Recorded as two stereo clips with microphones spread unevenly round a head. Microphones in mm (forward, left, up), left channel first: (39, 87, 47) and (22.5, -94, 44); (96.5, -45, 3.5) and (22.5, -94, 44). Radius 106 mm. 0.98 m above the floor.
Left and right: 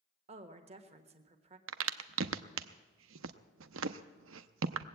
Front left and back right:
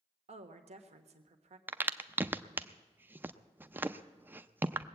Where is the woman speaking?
150° right, 1.3 m.